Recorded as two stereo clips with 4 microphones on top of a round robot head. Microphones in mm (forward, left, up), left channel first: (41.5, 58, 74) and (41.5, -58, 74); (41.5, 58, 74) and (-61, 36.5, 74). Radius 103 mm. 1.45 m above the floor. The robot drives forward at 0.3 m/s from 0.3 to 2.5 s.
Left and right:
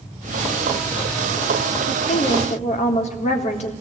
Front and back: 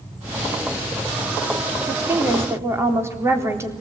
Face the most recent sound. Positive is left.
turn(degrees=125)